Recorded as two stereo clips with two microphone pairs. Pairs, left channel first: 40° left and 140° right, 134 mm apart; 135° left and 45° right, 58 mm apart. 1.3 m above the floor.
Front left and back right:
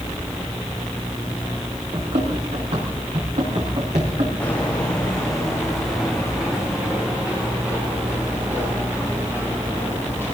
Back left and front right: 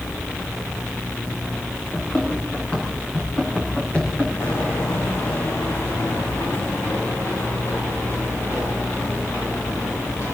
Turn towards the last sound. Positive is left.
turn(degrees=145)